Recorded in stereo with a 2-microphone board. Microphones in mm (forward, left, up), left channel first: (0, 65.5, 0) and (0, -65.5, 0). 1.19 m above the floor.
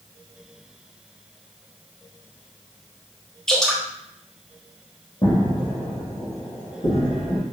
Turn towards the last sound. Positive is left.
turn(degrees=65)  # may be behind; listen again after turning